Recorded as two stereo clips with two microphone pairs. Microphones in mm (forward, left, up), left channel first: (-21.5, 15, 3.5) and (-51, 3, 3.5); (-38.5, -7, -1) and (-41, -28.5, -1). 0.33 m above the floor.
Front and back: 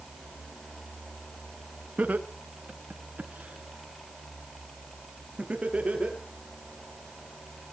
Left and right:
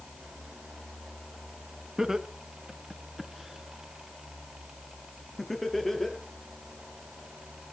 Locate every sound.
2.0 s laughter: 155° right, 3 m; by 6.2 s 160° left, 7 m